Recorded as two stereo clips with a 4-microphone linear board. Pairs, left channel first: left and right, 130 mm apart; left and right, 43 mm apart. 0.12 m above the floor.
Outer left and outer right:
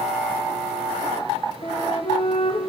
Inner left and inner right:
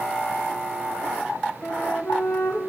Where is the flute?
50° left (ahead or behind), 3 m.